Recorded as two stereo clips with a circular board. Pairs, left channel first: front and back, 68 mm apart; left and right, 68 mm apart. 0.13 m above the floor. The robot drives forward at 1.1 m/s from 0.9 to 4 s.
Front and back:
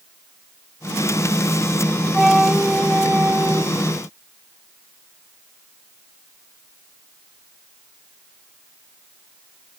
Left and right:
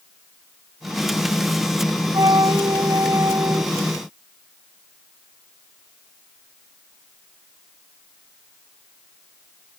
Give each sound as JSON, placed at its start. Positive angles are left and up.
{"t": 2.1, "sound": "a flute", "azimuth_deg": -90}